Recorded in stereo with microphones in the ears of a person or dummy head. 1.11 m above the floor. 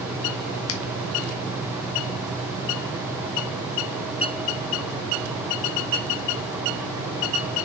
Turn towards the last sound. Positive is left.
turn(degrees=70)  # may be behind; listen again after turning